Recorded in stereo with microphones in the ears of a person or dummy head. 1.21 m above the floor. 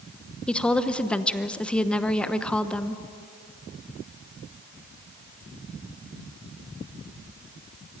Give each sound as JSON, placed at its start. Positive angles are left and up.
{"t": 0.5, "sound": "a woman speaking", "side_deg": 5, "distance_m": 0.9}